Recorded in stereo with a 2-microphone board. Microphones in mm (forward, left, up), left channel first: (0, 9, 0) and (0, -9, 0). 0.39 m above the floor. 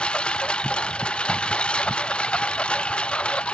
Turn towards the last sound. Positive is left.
turn(degrees=75)  # may be behind; listen again after turning